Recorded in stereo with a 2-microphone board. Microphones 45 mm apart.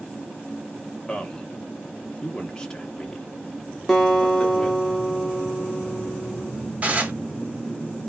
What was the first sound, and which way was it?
A man speaking, 15° left (ahead or behind).